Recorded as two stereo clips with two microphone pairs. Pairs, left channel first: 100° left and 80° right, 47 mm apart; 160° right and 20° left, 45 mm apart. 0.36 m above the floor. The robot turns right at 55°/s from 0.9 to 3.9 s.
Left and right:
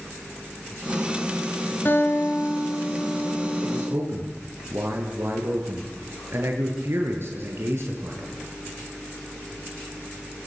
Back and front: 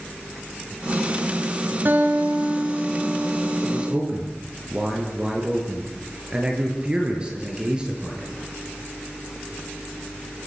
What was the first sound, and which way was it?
A guitar, 60° left.